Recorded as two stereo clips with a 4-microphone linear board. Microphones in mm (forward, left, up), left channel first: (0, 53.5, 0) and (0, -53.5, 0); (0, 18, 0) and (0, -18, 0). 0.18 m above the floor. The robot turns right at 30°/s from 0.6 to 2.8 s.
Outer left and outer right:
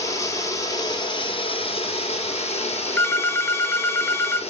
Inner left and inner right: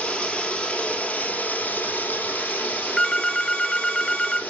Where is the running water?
30° left, 1.5 m; by 4.5 s 95° left, 1.5 m.